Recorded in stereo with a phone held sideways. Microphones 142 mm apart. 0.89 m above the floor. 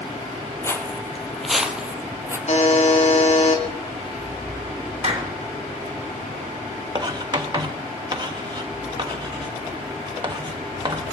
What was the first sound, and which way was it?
Footsteps, 20° left (ahead or behind).